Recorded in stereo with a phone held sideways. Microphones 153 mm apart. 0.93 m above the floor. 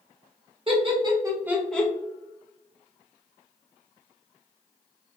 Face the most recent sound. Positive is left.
turn(degrees=15)  # may be behind; listen again after turning